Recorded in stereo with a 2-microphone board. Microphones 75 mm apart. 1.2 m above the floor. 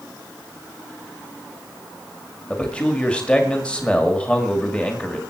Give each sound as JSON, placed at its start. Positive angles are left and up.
{"t": 2.5, "sound": "a man speaking", "side_deg": 15, "distance_m": 1.9}